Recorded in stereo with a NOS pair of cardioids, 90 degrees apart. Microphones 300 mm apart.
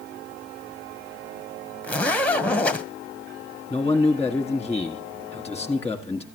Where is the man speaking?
5° left, 1.7 m.